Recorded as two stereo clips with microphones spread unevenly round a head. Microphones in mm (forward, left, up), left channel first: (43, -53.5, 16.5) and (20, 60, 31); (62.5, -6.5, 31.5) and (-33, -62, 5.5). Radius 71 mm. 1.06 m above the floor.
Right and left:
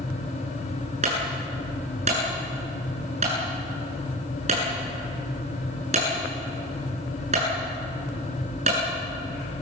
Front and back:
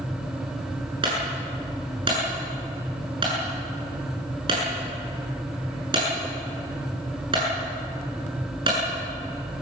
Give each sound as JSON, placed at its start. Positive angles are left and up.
{"t": 1.0, "sound": "a clunk", "azimuth_deg": 150, "distance_m": 8.0}